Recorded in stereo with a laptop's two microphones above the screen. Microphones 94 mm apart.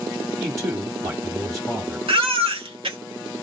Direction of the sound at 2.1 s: 85° right.